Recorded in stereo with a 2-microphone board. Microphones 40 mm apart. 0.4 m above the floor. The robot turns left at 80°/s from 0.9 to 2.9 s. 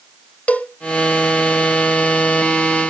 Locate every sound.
0.5 s a cowbell: 40° left (ahead or behind), 1.0 m